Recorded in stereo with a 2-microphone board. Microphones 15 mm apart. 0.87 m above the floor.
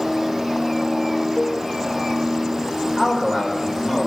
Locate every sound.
1.4 s a cowbell: 45° left (ahead or behind), 3 m
3.0 s a man speaking: 50° left (ahead or behind), 3.5 m